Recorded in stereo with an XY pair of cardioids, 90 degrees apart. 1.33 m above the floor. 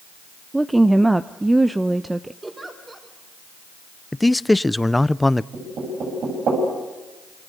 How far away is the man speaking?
About 0.5 m.